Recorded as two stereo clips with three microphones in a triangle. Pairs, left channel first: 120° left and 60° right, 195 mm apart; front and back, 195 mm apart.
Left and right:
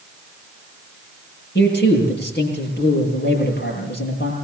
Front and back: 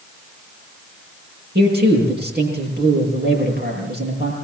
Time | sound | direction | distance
1.6 | a man speaking | 150° left | 9 m